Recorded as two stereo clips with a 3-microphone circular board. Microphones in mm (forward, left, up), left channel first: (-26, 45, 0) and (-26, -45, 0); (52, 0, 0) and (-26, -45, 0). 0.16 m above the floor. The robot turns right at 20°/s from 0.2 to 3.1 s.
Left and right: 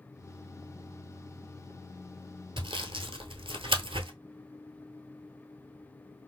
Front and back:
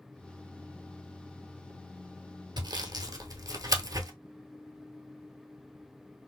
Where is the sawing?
115° right, 0.8 m; by 4.1 s 105° right, 0.8 m.